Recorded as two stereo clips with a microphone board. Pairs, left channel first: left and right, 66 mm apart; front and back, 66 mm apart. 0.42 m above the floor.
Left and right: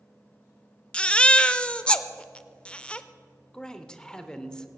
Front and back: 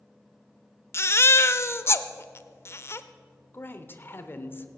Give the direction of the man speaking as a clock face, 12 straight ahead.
11 o'clock.